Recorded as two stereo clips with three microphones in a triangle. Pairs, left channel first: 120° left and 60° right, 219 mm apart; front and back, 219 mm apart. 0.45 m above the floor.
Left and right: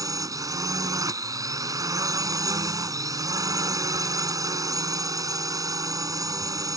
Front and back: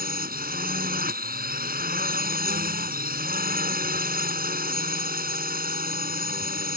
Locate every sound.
0.0 s a drone: 135° right